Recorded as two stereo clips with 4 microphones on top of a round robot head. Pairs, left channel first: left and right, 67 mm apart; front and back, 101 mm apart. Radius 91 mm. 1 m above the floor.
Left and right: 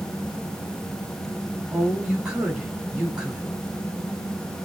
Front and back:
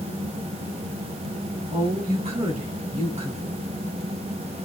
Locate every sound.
1.7 s a woman speaking: 170° right, 10 m